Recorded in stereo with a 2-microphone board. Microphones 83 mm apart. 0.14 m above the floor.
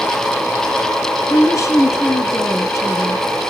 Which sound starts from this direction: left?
A woman speaking, at 1.3 s.